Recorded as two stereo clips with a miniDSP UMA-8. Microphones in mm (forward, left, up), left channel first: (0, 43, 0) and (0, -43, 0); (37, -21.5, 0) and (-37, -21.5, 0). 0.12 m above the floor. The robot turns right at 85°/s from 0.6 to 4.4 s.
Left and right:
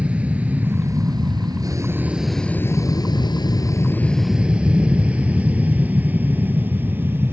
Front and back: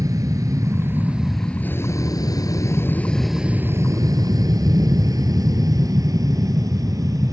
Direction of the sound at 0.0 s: 160° right.